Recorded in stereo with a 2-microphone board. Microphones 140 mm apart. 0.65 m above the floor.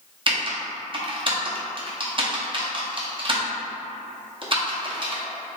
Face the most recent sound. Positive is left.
turn(degrees=-35)  # may be behind; listen again after turning